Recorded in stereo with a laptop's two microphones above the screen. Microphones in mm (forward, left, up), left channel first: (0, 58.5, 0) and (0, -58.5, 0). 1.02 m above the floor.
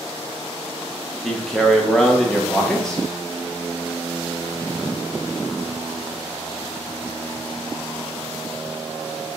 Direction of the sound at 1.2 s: 5° left (ahead or behind).